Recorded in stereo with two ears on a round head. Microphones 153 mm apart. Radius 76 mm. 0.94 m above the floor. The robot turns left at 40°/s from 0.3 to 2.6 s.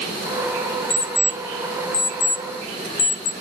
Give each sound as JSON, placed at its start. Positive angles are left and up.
{"t": 0.9, "sound": "an alarm clock", "side_deg": 0, "distance_m": 1.4}